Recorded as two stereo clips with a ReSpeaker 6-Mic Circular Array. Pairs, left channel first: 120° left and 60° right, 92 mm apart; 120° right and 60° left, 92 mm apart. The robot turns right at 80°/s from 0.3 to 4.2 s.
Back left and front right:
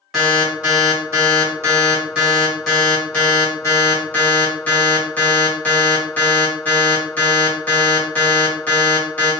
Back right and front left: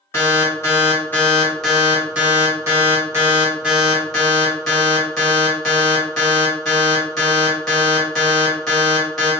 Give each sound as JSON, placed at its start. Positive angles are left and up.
{"t": 0.1, "sound": "an alarm", "azimuth_deg": -150, "distance_m": 1.5}